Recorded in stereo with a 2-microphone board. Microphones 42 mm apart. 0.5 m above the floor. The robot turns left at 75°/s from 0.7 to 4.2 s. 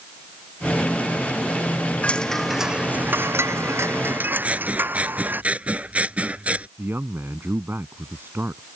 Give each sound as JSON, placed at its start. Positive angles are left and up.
{"t": 2.0, "sound": "a chime", "azimuth_deg": 30}
{"t": 4.4, "sound": "scissors", "side_deg": -30}
{"t": 6.8, "sound": "a man speaking", "side_deg": -60}